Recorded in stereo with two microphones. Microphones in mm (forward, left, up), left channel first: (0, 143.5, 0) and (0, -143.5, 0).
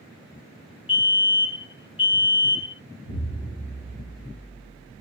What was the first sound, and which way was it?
A fire alarm, 20° left (ahead or behind).